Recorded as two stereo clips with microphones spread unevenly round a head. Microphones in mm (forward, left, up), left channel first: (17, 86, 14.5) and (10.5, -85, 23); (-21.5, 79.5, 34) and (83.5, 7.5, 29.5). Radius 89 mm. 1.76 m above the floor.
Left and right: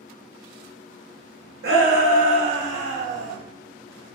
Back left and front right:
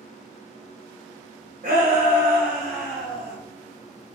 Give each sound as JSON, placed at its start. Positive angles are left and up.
{"t": 1.6, "sound": "a shout", "azimuth_deg": -85, "distance_m": 1.6}